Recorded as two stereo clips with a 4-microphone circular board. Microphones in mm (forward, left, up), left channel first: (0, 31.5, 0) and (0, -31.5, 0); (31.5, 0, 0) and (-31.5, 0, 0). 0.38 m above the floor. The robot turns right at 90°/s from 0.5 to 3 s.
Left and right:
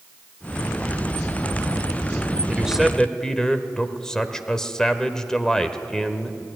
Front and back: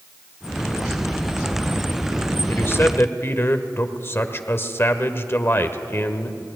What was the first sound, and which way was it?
A man speaking, 30° right.